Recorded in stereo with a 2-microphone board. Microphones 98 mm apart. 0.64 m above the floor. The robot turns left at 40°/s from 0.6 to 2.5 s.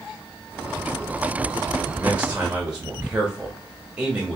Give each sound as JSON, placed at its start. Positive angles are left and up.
{"t": 1.9, "sound": "a man speaking", "side_deg": -25, "distance_m": 0.9}